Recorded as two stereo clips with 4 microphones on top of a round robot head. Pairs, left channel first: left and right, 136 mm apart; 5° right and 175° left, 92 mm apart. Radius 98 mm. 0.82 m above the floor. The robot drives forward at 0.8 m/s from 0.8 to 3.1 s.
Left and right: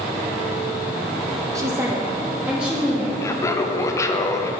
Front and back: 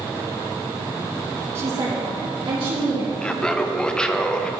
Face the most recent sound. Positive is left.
turn(degrees=65)